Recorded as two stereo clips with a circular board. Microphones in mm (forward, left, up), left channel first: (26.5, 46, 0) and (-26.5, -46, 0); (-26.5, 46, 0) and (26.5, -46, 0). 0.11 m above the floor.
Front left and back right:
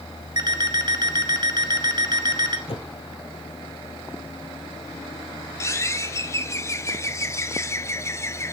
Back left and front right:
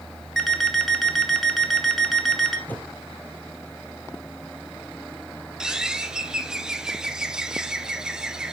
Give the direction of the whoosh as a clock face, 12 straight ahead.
10 o'clock.